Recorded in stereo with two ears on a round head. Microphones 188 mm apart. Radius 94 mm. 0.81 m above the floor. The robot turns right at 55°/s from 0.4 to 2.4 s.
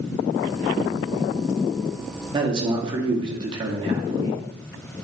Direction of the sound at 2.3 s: 20° right (ahead or behind).